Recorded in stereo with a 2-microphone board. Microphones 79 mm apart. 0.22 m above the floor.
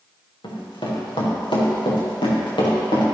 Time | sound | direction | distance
0.4 | running footsteps | 80° left | 4.5 m